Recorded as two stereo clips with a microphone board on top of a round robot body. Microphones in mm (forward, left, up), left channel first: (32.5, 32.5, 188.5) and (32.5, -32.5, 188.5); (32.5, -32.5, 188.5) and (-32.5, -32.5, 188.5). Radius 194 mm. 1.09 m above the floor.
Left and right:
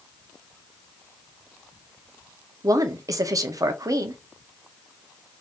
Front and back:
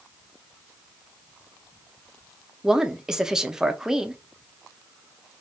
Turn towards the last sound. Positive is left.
turn(degrees=-100)